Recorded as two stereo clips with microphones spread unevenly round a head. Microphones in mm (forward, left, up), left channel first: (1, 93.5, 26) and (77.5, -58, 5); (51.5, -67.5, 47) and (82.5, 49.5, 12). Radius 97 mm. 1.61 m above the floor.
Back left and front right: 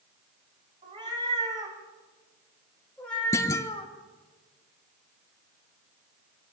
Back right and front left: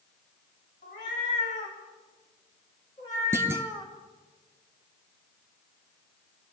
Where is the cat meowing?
130° right, 4.5 m; by 3.9 s 170° left, 2 m.